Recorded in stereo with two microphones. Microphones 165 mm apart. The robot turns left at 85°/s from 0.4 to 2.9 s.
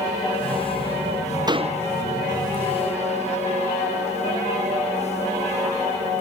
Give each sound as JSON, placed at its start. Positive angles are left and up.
{"t": 1.5, "sound": "a door slam", "azimuth_deg": -25}